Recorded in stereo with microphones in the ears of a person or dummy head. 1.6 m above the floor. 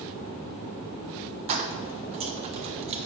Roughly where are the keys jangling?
Right.